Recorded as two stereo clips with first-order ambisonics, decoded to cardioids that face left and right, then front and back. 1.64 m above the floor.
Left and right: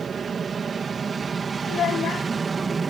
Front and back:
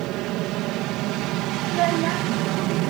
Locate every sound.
0.0 s an aircraft: 155° right; by 2.9 s 160° right
1.7 s a child speaking: 150° left